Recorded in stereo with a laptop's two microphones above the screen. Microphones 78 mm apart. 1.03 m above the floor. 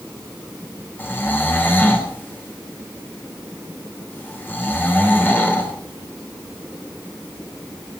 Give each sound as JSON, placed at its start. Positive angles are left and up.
{"t": 1.0, "sound": "snoring", "side_deg": 25, "distance_m": 3.0}